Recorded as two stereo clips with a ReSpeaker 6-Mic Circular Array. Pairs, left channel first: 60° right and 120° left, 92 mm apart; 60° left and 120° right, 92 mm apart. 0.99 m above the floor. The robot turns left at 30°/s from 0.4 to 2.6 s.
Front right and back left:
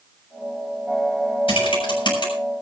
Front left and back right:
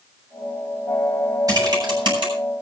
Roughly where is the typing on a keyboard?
Right.